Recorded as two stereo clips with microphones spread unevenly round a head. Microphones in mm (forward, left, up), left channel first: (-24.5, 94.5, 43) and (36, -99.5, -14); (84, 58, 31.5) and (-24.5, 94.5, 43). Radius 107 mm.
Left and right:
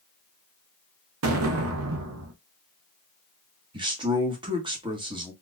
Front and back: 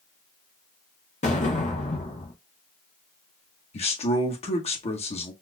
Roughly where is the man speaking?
Ahead.